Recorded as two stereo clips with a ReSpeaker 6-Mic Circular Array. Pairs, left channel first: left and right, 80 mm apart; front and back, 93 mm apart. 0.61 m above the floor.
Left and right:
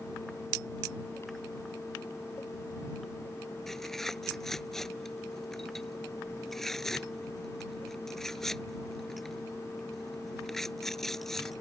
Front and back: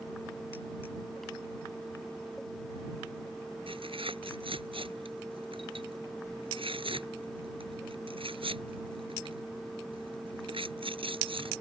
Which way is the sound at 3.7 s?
175° left.